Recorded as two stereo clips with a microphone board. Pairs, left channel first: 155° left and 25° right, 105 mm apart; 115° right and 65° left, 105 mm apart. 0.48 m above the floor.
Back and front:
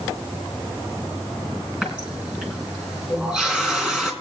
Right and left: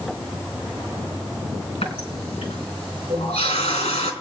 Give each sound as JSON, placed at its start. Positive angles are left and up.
{"t": 1.8, "sound": "a running tap", "azimuth_deg": -105, "distance_m": 3.5}